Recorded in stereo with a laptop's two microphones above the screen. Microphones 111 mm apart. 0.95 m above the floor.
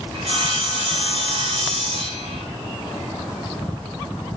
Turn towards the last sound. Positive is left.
turn(degrees=-60)  # may be behind; listen again after turning